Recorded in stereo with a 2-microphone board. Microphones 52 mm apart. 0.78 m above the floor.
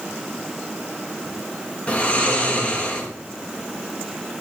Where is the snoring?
30° left (ahead or behind), 1.0 m.